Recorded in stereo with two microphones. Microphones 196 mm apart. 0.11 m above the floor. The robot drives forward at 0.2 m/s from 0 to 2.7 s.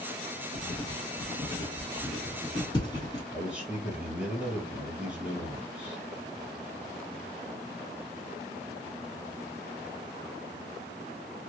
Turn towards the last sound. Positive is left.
turn(degrees=-10)  # may be behind; listen again after turning